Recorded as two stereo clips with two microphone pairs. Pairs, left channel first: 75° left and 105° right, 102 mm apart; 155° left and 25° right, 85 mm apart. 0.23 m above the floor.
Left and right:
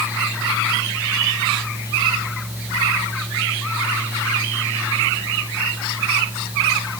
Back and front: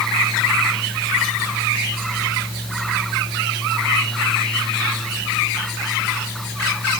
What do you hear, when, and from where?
Only background noise.